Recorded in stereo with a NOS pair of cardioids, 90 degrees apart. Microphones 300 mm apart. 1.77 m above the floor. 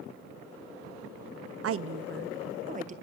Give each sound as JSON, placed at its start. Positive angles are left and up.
{"t": 1.6, "sound": "a woman speaking", "azimuth_deg": -50, "distance_m": 1.0}